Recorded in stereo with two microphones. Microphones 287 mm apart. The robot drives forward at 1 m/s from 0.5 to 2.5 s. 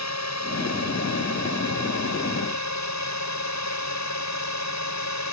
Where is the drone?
65° left (ahead or behind); by 5.3 s 70° left (ahead or behind).